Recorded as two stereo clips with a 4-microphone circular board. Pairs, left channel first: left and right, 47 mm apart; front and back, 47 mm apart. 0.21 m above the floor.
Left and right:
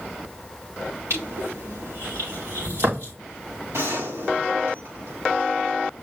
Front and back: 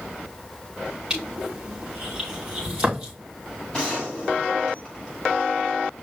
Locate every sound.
1.1 s crushing: 105° right, 5.5 m
3.7 s a gunshot: 75° right, 5 m